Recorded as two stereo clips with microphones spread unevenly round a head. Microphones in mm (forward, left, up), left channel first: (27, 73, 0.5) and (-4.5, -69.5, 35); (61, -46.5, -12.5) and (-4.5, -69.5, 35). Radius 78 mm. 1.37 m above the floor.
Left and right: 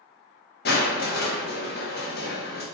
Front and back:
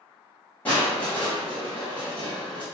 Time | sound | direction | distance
0.7 | crushing | 95° left | 2.5 m